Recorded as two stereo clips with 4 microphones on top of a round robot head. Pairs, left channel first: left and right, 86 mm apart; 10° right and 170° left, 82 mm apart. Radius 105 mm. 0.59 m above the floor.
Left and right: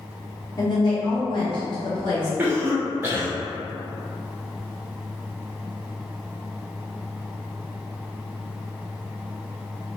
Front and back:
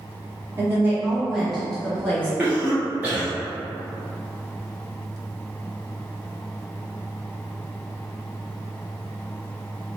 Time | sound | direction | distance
0.6 | a woman speaking | 125° left | 0.9 m
2.4 | a cough | 135° right | 0.8 m